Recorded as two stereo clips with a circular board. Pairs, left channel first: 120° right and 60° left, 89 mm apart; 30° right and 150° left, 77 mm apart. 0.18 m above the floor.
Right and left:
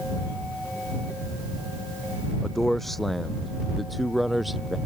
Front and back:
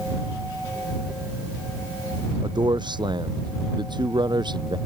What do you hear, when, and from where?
2.4 s a man speaking: 155° left; by 4.8 s 150° left